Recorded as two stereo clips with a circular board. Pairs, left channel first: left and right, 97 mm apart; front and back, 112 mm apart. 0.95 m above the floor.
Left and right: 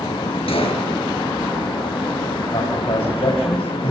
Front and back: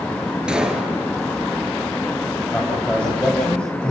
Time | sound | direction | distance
0.5 | a gunshot | 100° left | 4.5 m
2.5 | a man speaking | 80° left | 4 m